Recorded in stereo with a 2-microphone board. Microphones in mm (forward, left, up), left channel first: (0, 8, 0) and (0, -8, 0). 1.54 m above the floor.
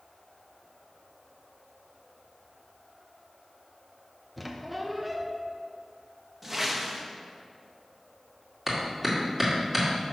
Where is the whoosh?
15° right (ahead or behind), 0.9 m.